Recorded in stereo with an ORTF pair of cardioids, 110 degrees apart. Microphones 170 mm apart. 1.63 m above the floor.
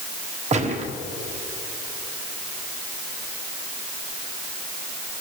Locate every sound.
0.5 s a gunshot: 45° right, 1.4 m